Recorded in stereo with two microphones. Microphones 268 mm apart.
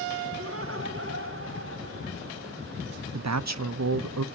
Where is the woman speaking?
70° right (ahead or behind), 0.5 m.